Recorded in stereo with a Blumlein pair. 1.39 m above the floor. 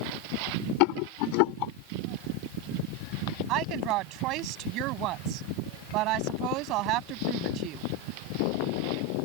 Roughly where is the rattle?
Ahead left.